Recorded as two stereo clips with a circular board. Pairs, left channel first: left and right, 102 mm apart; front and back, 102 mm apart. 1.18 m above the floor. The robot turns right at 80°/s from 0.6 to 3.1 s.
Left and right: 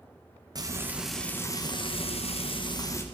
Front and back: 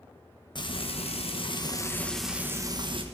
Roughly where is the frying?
Ahead right.